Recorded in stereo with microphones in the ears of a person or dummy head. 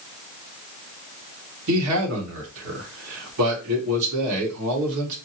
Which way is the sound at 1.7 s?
80° right.